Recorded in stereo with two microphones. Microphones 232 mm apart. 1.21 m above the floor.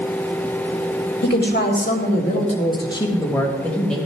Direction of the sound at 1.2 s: 50° left (ahead or behind).